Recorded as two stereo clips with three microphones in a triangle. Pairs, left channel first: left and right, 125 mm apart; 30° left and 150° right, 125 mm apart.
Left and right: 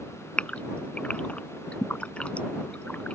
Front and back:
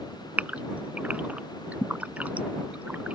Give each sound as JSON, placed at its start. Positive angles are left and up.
{"t": 0.4, "sound": "a gasp", "azimuth_deg": 155}